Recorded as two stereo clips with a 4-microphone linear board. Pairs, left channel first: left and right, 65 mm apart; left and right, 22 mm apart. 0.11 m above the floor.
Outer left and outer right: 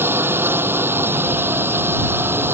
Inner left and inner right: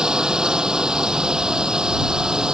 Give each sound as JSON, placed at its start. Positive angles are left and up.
{"t": 0.0, "sound": "a drone", "side_deg": -35}